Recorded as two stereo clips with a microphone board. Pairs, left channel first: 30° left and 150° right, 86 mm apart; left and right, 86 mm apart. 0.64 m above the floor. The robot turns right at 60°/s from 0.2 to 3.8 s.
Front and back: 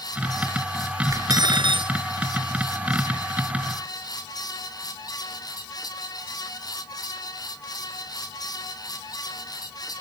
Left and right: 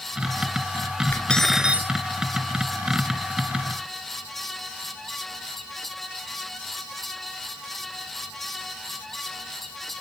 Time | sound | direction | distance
1.1 | cutlery clinking | 160° left | ?